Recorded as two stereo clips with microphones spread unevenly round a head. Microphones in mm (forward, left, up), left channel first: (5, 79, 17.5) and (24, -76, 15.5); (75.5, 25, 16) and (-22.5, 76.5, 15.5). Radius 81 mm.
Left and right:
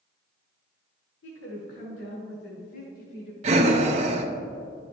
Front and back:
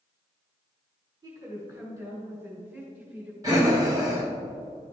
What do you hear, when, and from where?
1.2 s a woman speaking: 100° left, 2 m; by 3.3 s 80° left, 3 m
3.4 s breathing: 135° right, 0.6 m